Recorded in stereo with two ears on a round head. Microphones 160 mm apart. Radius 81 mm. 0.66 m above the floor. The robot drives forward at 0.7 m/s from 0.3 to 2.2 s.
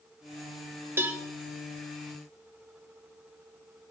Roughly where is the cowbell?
Centre.